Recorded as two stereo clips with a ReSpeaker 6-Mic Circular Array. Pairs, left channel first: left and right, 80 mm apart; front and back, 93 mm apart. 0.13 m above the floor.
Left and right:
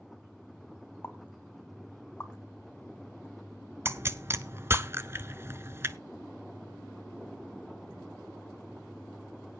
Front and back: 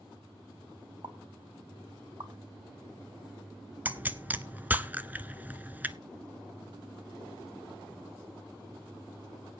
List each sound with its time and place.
1.0 s a pop: 150° left, 1.2 m
3.9 s a pop: 120° right, 0.6 m